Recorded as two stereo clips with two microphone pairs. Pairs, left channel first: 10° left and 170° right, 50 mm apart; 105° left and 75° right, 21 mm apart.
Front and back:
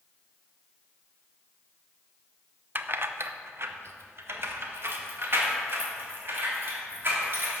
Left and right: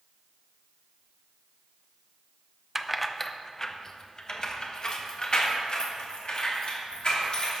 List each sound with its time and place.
2.8 s keys jangling: 150° right, 0.5 m; by 7.6 s 145° left, 3 m